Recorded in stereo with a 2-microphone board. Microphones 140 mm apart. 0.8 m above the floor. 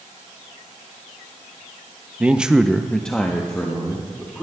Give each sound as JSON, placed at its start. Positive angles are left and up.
{"t": 2.2, "sound": "a man speaking", "side_deg": -10, "distance_m": 0.6}